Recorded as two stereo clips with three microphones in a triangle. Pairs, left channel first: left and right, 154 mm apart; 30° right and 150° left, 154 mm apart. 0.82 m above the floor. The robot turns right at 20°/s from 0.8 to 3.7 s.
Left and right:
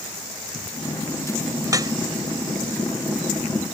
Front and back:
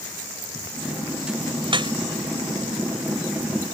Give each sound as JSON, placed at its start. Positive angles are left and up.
{"t": 1.6, "sound": "dripping", "azimuth_deg": -160}